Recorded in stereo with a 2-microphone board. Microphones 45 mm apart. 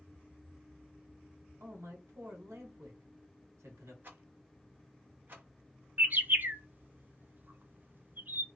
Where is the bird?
45° right (ahead or behind), 0.5 m.